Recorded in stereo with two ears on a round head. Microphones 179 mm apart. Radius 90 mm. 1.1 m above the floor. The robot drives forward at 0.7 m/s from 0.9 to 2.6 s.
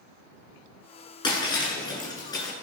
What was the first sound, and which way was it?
Breaking glass, 25° left (ahead or behind).